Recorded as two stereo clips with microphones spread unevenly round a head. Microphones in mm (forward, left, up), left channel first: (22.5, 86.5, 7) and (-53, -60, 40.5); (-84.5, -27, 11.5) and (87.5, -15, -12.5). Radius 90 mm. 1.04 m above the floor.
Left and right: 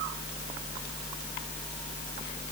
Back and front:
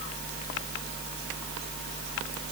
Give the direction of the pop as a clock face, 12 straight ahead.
I don't hear a pop.